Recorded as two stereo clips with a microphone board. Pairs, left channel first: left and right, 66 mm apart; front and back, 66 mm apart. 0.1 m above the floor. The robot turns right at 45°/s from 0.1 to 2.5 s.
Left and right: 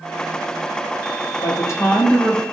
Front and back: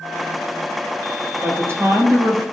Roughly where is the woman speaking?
Behind left.